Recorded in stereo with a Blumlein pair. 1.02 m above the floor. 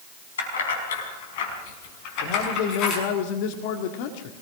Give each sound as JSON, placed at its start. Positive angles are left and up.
{"t": 0.4, "sound": "keys jangling", "azimuth_deg": 65, "distance_m": 5.0}
{"t": 2.2, "sound": "a man speaking", "azimuth_deg": 45, "distance_m": 1.9}